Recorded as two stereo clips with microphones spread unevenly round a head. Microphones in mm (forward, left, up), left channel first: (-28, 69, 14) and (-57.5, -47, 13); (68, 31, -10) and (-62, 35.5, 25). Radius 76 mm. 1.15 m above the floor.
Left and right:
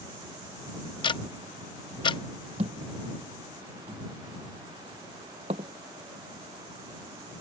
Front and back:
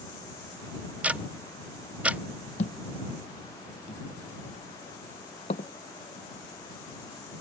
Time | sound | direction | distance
1.0 | ticking | 110° left | ?
2.6 | a thud | 50° right | ?